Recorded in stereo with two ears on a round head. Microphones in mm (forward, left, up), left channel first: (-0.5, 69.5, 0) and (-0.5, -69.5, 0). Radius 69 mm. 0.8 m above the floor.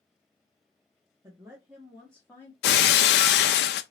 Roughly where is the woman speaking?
Right.